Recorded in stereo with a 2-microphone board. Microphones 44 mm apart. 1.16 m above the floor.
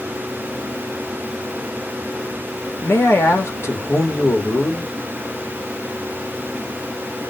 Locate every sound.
2.8 s a man speaking: 75° left (ahead or behind), 1.5 m